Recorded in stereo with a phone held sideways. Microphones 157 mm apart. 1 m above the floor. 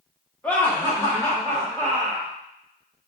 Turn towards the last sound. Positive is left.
turn(degrees=20)  # may be behind; listen again after turning